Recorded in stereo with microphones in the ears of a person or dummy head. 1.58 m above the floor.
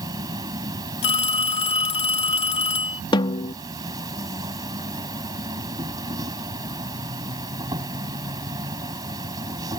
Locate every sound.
0.0 s an insect: 20° right (ahead or behind)
1.0 s a phone ringing: 40° left (ahead or behind)
3.1 s a snare drum: 30° left (ahead or behind)